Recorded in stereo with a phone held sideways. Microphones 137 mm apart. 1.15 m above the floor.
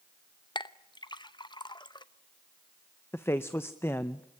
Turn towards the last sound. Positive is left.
turn(degrees=15)  # may be behind; listen again after turning